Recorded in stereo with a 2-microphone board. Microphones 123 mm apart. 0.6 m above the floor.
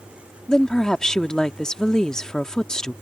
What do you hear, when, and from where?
0.5 s a woman speaking: 5° left (ahead or behind)